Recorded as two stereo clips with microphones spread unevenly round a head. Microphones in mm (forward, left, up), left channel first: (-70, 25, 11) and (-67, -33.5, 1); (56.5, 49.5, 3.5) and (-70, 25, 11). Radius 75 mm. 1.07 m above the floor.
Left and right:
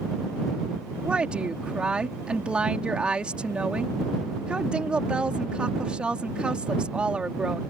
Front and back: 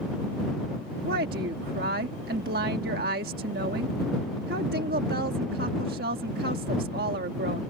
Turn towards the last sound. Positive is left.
turn(degrees=-160)